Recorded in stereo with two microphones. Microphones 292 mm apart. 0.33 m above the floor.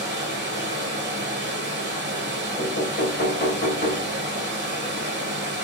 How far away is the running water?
About 0.9 m.